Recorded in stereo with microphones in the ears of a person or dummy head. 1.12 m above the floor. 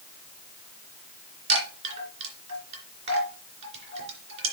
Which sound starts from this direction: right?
A chime, at 1.5 s.